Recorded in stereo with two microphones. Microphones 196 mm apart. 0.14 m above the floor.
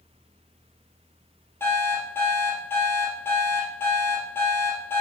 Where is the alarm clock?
10° left (ahead or behind), 2 m.